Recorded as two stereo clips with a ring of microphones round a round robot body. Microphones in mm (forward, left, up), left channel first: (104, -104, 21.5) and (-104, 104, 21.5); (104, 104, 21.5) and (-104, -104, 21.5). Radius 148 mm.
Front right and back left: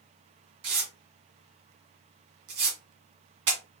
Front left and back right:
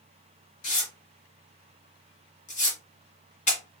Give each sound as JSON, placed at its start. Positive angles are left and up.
{"t": 0.6, "sound": "tearing paper", "azimuth_deg": 110, "distance_m": 2.0}